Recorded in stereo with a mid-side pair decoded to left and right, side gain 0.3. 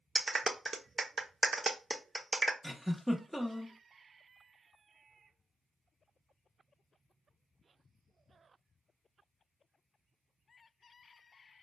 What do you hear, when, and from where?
0.1 s a clap: 45° right, 0.7 m
2.6 s a giggle: 5° left, 1.1 m